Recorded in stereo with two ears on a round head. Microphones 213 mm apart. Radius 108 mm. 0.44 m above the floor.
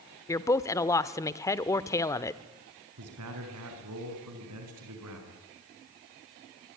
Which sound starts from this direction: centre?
A woman speaking, at 0.3 s.